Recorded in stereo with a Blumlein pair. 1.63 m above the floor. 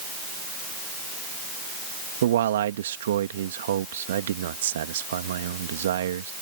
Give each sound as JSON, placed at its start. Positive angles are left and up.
{"t": 2.2, "sound": "a man speaking", "azimuth_deg": -60}